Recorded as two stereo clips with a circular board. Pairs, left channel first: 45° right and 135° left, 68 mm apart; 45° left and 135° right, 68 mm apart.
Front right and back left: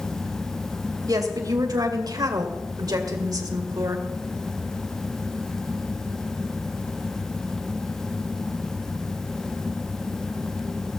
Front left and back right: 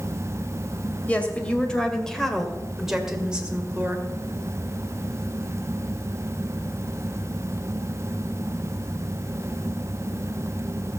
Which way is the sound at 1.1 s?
115° left.